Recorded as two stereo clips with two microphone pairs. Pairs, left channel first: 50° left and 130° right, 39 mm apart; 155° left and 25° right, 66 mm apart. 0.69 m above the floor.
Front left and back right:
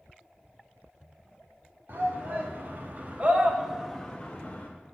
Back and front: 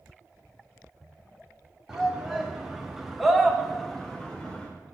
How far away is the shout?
About 1.9 m.